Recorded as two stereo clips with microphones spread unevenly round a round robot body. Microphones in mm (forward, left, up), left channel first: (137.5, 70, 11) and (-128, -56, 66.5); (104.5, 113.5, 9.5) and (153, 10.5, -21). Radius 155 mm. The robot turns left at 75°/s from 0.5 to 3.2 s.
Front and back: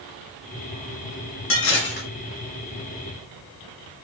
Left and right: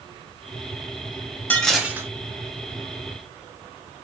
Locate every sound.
1.5 s dishes clattering: 30° left, 0.9 m; by 2.1 s 15° right, 0.9 m